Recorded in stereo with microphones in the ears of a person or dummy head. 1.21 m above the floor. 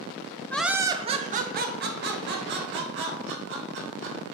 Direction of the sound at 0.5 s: 5° left (ahead or behind).